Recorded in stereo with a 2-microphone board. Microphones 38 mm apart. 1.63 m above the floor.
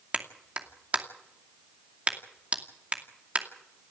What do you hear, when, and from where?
0.1 s a clap: 35° right (ahead or behind), 2.5 m